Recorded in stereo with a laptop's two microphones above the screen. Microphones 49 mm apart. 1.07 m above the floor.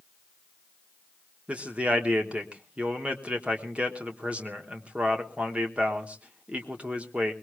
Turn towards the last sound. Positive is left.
turn(degrees=-30)  # may be behind; listen again after turning